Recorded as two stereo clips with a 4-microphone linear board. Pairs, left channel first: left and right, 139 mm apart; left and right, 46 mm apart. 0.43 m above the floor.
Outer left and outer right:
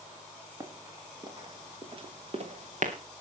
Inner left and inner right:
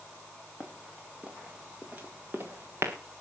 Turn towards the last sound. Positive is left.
turn(degrees=-60)  # may be behind; listen again after turning